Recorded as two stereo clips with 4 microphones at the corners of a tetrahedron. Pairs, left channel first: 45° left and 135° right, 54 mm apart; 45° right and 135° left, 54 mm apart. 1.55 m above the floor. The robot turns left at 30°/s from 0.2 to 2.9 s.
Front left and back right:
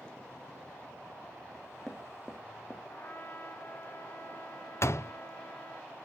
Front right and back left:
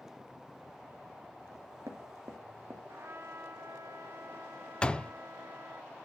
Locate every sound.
1.5 s knocking: 145° left, 2.5 m; by 2.8 s 105° left, 2.5 m
2.9 s a trumpet: 100° left, 1.4 m
4.8 s a door slam: 30° left, 0.5 m